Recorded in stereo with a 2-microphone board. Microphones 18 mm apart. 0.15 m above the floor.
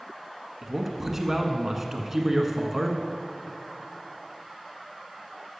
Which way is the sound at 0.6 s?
15° right (ahead or behind).